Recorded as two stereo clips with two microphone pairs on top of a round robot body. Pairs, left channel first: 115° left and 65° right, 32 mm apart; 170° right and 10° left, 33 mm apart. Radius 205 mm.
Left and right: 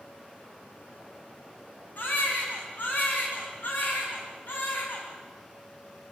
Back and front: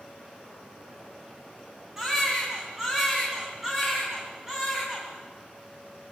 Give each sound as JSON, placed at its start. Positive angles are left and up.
{"t": 2.0, "sound": "a baby crying", "azimuth_deg": 85, "distance_m": 4.0}